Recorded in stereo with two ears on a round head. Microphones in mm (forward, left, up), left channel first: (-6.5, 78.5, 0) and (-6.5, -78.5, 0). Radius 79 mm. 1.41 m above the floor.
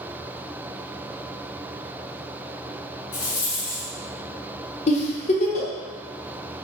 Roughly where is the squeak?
No squeak in this recording.